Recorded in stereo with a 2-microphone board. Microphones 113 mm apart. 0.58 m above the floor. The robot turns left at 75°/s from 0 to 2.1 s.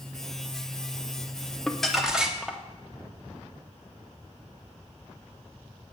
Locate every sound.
1.7 s crumpling: 5° left (ahead or behind), 0.8 m; by 2.6 s 5° right (ahead or behind), 0.8 m